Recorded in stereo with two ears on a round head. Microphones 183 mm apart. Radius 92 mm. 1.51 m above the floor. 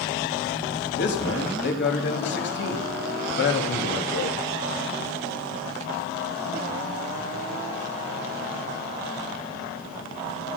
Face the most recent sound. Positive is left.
turn(degrees=60)  # may be behind; listen again after turning